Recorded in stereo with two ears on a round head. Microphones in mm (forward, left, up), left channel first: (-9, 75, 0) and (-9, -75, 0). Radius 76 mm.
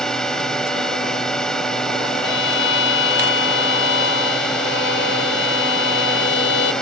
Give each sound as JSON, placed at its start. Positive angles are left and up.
{"t": 0.0, "sound": "a drone", "side_deg": 5}
{"t": 2.2, "sound": "a violin", "side_deg": 80}